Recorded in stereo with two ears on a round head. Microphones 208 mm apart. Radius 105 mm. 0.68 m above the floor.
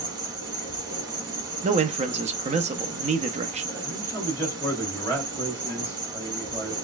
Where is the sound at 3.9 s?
10° left (ahead or behind), 3 m.